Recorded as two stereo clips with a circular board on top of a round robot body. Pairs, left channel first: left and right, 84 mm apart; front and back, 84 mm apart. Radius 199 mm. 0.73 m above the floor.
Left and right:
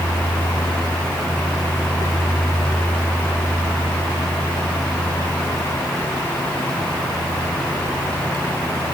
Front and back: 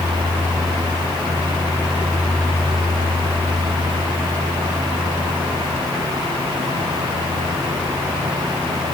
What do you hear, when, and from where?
Only background noise.